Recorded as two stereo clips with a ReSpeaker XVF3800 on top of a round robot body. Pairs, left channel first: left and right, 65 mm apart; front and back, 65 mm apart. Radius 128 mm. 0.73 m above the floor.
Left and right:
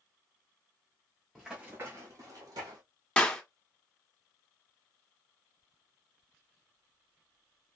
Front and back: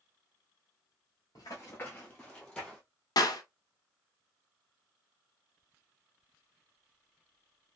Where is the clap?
15° left, 1.1 m.